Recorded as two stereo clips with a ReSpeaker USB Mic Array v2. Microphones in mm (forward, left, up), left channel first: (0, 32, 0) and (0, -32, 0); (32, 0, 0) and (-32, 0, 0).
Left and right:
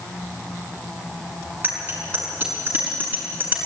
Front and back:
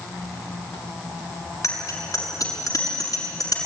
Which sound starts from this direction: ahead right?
A bicycle bell, at 1.6 s.